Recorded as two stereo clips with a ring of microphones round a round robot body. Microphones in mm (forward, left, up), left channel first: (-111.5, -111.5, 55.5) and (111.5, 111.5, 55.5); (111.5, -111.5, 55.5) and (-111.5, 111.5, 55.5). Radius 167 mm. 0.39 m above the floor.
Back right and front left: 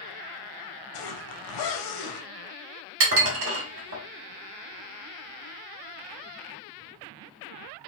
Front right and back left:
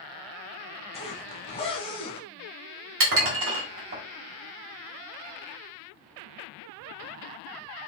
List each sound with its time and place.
0.9 s a zipper: 120° right, 0.8 m
3.0 s dishes clattering: 90° left, 1.5 m